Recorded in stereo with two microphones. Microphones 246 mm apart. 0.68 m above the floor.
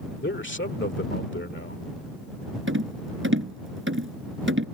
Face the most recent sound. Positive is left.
turn(degrees=-55)  # may be behind; listen again after turning